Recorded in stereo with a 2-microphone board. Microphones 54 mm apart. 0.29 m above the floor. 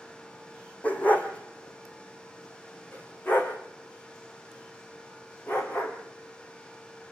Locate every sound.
0.8 s a dog barking: 25° left (ahead or behind), 3.5 m; by 5.9 s 40° left (ahead or behind), 7.5 m